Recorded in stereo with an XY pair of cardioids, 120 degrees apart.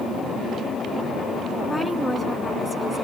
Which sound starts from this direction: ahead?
A woman speaking, at 1.7 s.